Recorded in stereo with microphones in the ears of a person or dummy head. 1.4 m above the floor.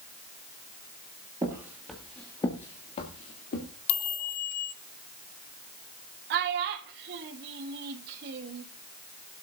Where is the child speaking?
60° right (ahead or behind), 1.2 m.